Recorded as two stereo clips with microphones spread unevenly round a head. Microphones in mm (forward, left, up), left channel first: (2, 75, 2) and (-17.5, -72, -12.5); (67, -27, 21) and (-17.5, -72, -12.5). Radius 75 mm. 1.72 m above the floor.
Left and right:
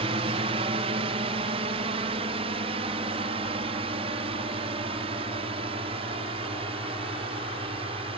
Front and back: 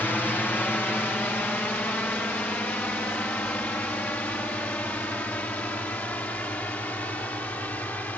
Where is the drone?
50° right; by 8.2 s 45° right.